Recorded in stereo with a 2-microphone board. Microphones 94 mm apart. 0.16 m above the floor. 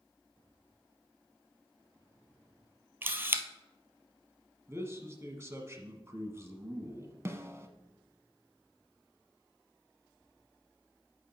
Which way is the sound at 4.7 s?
30° right (ahead or behind).